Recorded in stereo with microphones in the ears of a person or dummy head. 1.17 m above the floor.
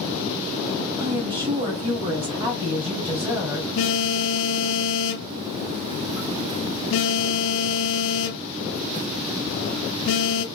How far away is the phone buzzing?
About 0.9 m.